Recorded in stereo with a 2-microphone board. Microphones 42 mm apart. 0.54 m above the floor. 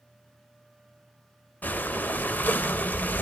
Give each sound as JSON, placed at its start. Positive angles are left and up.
{"t": 1.6, "sound": "breathing", "side_deg": 45, "distance_m": 0.6}